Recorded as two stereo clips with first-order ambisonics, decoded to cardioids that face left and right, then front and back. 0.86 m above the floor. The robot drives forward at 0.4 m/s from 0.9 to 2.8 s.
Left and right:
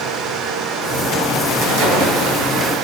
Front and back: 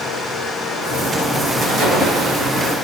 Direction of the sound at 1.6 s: 120° right.